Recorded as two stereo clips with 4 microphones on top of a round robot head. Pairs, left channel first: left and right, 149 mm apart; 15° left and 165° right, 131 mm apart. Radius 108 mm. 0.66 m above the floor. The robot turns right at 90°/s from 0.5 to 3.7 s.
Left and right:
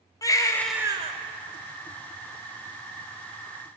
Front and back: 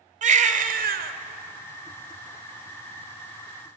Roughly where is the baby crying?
Behind.